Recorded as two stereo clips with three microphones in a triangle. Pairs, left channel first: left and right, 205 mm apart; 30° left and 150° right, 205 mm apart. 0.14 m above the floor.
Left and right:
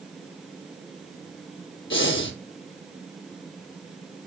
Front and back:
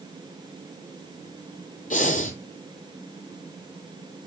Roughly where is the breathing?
Left.